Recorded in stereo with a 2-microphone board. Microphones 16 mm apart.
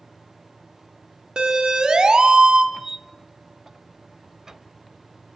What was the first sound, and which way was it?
A siren, 55° right (ahead or behind).